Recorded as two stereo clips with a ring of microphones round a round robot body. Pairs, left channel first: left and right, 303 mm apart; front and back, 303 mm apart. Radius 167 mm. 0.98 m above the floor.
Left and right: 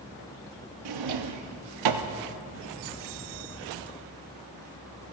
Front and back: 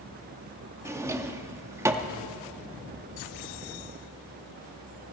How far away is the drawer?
About 0.9 m.